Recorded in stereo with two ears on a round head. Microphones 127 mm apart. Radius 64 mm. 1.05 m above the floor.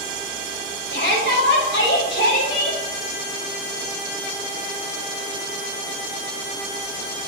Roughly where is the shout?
Left.